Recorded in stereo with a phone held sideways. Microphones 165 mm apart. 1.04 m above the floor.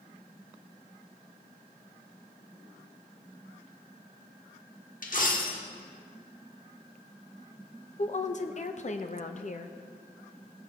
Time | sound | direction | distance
5.0 | a dropped coin | 55° left (ahead or behind) | 1.2 m
8.0 | a woman speaking | 45° left (ahead or behind) | 0.8 m